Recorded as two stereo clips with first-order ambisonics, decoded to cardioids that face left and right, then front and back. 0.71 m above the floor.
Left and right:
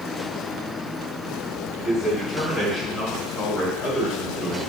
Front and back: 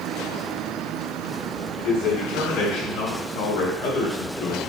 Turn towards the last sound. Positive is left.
turn(degrees=20)